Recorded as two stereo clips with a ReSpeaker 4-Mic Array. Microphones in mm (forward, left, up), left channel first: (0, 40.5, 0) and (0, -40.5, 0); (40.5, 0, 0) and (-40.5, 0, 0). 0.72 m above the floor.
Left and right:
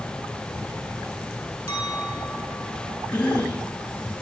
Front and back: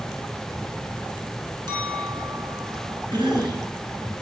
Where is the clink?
150° left, 5.5 m.